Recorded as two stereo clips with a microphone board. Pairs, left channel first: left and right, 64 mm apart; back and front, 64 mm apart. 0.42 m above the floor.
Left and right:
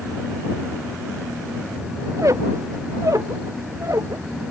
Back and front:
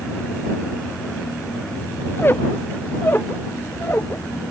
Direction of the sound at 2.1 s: 125° right.